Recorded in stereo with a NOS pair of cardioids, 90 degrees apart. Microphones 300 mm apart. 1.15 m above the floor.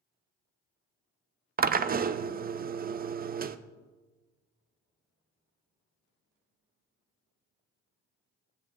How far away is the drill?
About 0.5 m.